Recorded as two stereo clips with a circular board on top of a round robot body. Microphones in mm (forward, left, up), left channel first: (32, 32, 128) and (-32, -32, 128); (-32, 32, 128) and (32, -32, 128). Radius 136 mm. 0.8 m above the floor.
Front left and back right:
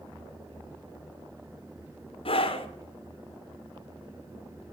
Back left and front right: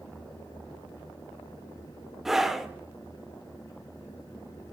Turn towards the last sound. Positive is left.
turn(degrees=40)